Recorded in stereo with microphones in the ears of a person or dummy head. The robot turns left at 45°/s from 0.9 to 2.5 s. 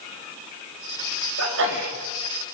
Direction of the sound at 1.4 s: 75° right (ahead or behind).